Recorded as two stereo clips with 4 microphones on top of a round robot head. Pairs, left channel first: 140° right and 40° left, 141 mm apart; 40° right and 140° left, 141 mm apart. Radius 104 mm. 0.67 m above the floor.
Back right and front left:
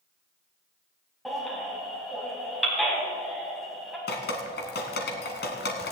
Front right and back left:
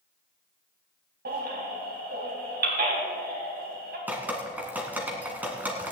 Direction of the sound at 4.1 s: 140° right.